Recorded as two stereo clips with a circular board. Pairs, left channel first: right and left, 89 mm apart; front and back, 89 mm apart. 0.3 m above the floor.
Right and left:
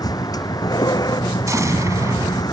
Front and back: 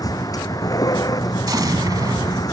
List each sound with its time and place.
0.0 s a vehicle: 45° right
1.5 s an explosion: 140° left